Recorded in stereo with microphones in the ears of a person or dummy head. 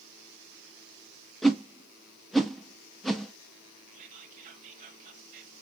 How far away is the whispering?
About 0.9 m.